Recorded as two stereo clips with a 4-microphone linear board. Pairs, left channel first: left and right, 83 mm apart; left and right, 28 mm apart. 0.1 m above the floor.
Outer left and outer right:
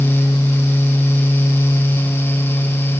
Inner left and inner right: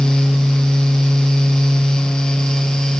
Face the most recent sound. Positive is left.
No sound to turn to.